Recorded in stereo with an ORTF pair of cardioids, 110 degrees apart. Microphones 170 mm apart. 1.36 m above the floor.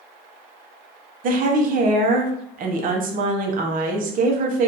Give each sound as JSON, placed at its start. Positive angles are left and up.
{"t": 1.2, "sound": "a woman speaking", "azimuth_deg": -55, "distance_m": 0.8}